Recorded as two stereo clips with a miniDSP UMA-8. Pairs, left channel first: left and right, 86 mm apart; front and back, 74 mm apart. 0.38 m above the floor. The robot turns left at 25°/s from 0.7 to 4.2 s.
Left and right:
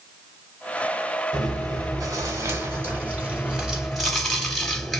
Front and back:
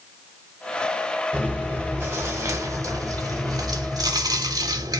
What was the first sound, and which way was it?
Chewing, 115° right.